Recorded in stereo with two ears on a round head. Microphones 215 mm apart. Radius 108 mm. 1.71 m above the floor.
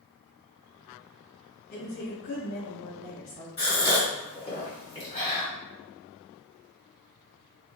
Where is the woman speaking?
35° left (ahead or behind), 1.2 m; by 3.5 s 50° left (ahead or behind), 1.1 m.